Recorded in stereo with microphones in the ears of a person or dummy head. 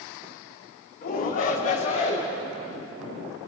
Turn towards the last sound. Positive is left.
turn(degrees=35)  # may be behind; listen again after turning